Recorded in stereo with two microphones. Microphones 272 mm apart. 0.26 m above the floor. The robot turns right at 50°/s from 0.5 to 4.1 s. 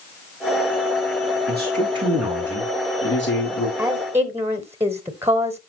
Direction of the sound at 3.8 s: 5° right (ahead or behind).